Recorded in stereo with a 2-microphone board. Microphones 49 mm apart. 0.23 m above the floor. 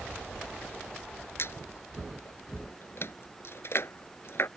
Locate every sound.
1.4 s a squeak: 55° left (ahead or behind)